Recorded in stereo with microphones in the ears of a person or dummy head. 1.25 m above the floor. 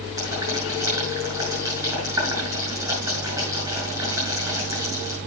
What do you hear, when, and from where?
0.2 s boiling: 15° right (ahead or behind), 6 m